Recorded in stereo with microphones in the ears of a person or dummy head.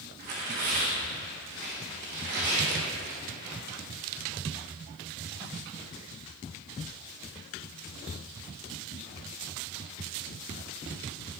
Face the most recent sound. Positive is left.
turn(degrees=-50)  # may be behind; listen again after turning